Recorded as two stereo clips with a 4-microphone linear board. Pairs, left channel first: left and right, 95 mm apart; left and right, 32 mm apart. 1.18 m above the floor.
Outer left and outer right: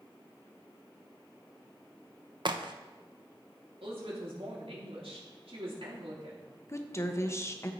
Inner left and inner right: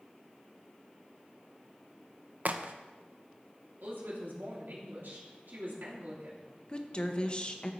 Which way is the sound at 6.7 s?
30° left (ahead or behind).